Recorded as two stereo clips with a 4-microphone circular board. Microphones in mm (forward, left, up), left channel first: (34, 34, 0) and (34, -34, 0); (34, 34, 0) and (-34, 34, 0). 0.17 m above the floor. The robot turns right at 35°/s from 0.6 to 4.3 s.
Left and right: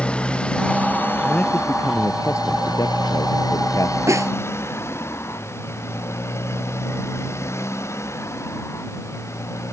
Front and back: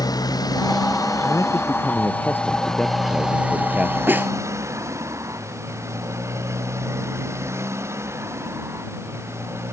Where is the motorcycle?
15° left; by 9.7 s 130° left.